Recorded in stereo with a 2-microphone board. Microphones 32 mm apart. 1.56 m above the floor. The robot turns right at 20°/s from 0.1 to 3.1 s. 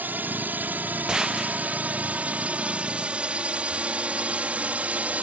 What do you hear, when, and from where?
0.0 s a drone: 75° right (ahead or behind); by 5.2 s 50° right (ahead or behind)
1.1 s a gunshot: 25° right (ahead or behind); by 1.8 s 15° right (ahead or behind)